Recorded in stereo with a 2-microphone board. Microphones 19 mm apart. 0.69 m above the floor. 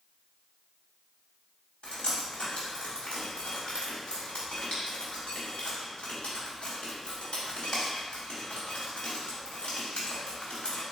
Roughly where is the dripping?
Left.